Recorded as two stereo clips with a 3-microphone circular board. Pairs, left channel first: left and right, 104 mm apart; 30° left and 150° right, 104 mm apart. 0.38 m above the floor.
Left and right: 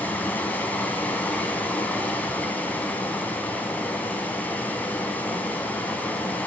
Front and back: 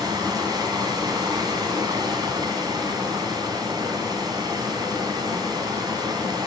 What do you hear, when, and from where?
0.0 s running water: 165° left, 2 m